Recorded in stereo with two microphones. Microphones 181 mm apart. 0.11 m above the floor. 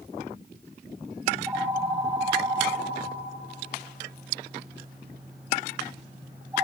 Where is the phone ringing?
10° right (ahead or behind), 3 m.